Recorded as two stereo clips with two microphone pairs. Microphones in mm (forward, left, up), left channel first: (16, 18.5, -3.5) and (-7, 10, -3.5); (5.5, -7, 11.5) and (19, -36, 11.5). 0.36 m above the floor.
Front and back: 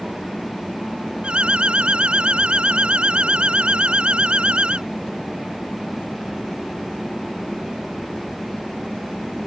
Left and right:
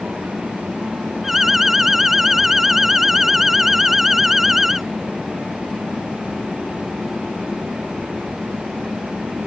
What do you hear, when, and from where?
1.2 s an alarm: 145° right